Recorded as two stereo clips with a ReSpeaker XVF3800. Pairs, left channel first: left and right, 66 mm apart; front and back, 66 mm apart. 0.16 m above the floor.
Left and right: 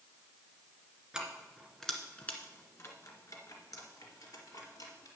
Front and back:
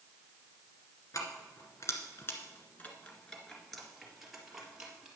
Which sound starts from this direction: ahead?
Keys jangling, at 1.1 s.